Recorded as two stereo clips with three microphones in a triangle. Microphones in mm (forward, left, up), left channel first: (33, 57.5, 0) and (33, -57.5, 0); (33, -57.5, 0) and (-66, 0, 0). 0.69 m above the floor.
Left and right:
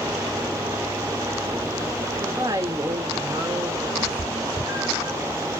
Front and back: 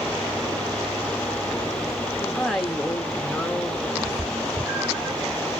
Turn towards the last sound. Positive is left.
turn(degrees=-135)